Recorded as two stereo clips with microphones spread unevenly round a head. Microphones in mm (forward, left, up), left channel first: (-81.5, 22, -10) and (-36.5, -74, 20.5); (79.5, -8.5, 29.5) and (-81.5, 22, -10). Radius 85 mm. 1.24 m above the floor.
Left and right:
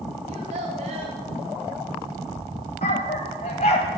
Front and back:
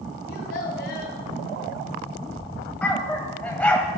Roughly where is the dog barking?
Ahead left.